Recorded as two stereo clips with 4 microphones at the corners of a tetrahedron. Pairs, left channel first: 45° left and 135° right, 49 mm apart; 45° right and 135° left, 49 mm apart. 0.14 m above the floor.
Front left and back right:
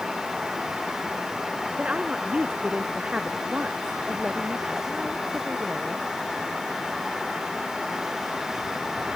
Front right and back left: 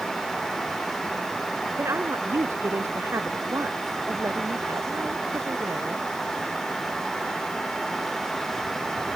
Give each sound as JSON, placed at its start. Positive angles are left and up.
{"t": 1.8, "sound": "a woman speaking", "azimuth_deg": 160}